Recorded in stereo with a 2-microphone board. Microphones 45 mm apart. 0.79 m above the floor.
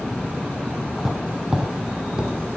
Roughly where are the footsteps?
Centre.